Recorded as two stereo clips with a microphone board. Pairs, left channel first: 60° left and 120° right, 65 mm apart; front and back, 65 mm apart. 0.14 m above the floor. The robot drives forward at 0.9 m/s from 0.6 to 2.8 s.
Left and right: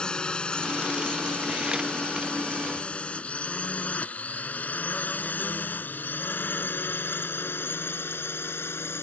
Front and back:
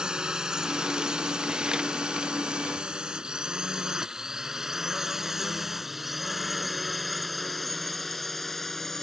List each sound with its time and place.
0.0 s a drone: 120° left; by 9.0 s 85° left